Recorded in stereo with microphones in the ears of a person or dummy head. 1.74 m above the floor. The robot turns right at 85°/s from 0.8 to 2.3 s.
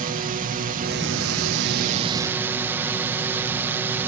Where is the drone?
140° right; by 4.1 s 10° right.